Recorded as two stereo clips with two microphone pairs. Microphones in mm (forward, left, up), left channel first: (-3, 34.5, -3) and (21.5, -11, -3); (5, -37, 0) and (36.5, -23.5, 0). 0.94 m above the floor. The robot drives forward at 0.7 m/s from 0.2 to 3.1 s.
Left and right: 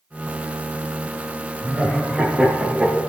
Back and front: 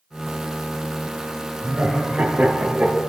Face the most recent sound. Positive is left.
turn(degrees=-30)